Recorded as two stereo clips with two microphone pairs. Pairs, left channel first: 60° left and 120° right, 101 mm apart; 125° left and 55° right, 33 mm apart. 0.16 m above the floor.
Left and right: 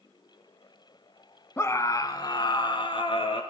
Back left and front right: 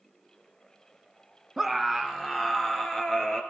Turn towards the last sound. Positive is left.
turn(degrees=60)